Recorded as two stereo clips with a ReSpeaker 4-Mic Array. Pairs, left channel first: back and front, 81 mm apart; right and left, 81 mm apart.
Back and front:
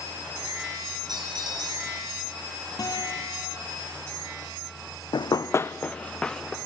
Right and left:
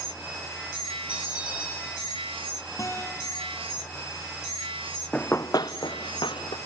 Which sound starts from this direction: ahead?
A bell, at 1.1 s.